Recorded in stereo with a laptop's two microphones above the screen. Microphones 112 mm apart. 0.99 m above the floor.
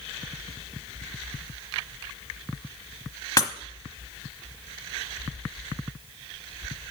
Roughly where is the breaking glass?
Left.